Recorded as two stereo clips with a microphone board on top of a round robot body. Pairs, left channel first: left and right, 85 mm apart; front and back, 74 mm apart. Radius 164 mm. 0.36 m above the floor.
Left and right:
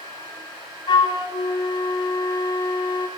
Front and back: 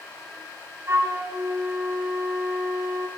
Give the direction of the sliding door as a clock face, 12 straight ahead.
I don't hear a sliding door.